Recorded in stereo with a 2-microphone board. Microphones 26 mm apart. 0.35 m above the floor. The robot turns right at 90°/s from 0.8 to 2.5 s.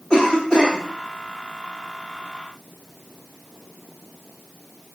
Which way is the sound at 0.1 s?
30° left (ahead or behind).